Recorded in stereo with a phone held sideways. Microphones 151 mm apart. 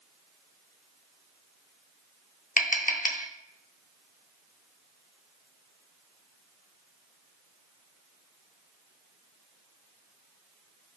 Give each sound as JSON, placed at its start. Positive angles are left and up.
{"t": 2.6, "sound": "tapping", "side_deg": 60, "distance_m": 1.3}